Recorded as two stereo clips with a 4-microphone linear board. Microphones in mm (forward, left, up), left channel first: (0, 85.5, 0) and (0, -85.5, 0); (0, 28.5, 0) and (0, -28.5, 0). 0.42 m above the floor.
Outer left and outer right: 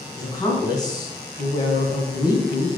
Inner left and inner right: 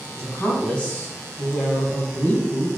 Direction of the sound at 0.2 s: 25° left (ahead or behind).